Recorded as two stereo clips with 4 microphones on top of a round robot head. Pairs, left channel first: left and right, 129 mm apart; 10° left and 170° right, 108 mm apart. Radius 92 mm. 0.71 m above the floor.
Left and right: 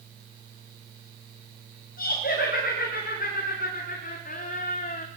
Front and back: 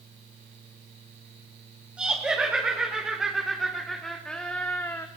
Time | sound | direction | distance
2.0 | laughter | 110° left | 4 m